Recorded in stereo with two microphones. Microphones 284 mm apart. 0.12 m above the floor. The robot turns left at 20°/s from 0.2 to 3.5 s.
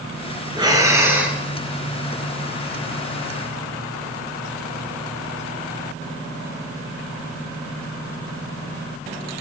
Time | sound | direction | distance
0.6 | breathing | 15° right (ahead or behind) | 1.1 m